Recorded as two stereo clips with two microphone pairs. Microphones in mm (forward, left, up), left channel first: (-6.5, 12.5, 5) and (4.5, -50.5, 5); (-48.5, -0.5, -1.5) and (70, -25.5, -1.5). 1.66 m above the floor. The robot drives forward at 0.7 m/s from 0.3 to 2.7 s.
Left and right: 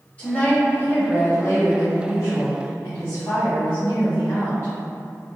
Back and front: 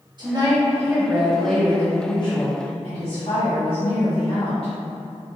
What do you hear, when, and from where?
0.2 s a woman speaking: 35° left, 1.2 m; by 4.7 s 145° left, 1.1 m